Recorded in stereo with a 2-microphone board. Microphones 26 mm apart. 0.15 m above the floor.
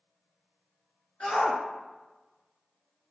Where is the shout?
50° left (ahead or behind), 1.9 m.